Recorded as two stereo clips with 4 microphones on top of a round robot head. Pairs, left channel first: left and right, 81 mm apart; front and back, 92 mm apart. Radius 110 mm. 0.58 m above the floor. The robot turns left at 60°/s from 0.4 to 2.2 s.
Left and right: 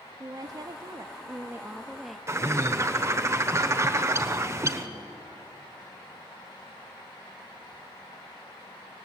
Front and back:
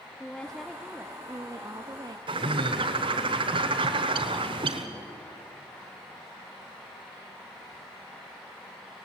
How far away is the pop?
I don't hear a pop.